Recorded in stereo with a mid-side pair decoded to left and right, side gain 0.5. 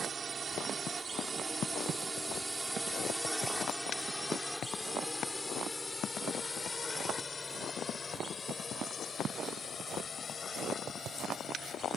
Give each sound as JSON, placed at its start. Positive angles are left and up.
{"t": 0.0, "sound": "a drone", "azimuth_deg": -45}